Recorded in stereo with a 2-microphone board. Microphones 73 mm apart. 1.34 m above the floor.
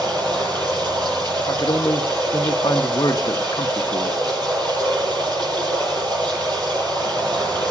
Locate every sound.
0.0 s running water: 80° right, 8 m
1.4 s a man speaking: 65° left (ahead or behind), 0.8 m